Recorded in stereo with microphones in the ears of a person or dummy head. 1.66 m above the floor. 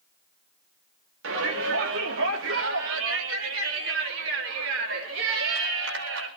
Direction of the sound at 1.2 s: 85° right.